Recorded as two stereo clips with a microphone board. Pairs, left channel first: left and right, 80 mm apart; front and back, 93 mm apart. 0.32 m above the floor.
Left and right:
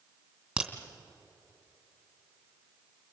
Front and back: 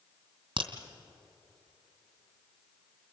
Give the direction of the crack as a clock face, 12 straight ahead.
6 o'clock.